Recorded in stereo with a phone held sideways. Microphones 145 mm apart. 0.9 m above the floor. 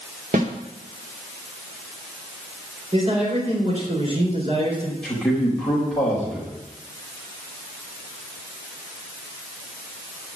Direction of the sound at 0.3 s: 65° right (ahead or behind).